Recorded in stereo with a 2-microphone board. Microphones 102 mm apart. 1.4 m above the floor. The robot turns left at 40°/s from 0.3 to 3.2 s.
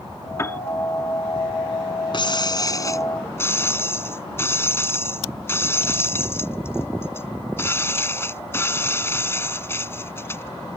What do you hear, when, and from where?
0.4 s a piano: 30° left (ahead or behind); by 0.6 s 20° left (ahead or behind)
2.1 s breaking glass: 75° left; by 10.8 s 30° left